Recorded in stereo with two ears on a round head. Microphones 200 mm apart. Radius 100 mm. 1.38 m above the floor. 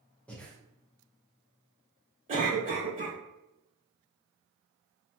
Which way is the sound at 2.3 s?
35° right (ahead or behind).